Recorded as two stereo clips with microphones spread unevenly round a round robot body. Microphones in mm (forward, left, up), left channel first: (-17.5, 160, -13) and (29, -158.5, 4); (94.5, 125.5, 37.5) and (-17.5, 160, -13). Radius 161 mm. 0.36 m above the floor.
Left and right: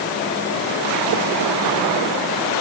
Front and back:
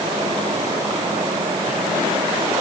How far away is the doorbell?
No doorbell in this recording.